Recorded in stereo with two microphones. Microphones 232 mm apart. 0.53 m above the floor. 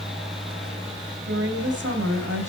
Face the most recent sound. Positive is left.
turn(degrees=-75)  # may be behind; listen again after turning